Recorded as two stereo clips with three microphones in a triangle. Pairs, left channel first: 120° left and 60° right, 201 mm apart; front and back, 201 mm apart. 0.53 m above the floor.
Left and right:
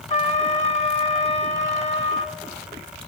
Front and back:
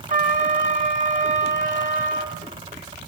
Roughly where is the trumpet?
Behind left.